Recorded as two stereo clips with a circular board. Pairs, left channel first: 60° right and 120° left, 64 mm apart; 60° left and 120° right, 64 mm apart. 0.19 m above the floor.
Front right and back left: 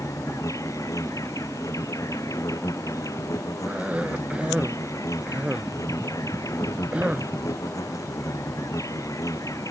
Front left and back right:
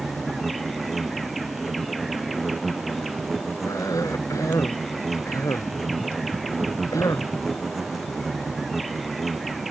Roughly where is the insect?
Ahead right.